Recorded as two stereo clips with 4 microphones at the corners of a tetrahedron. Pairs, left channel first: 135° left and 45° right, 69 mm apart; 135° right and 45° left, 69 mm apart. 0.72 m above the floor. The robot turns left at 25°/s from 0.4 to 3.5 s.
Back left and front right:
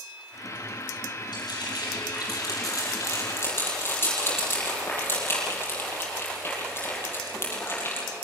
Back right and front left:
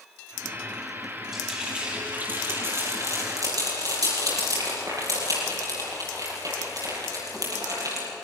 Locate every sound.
1.3 s frying: 130° left, 9.5 m; by 8.1 s 75° left, 9.5 m